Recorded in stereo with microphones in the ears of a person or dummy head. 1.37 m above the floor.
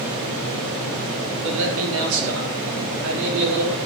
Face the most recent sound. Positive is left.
turn(degrees=-80)